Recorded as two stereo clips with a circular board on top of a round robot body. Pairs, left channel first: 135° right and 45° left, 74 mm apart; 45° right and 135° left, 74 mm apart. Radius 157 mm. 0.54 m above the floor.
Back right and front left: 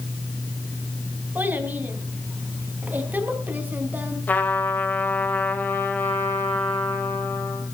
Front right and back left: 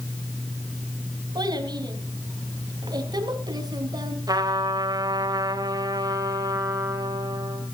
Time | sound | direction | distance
1.4 | a child speaking | 110° left | 4 m
4.3 | a trumpet | 160° left | 4 m